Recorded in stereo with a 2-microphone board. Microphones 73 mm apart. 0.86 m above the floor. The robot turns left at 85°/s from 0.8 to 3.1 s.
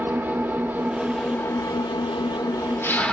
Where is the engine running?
155° right, 0.7 m; by 3.1 s 10° left, 0.7 m.